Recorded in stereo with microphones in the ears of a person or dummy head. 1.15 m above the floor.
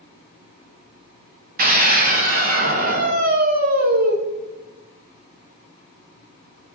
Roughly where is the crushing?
I don't hear crushing.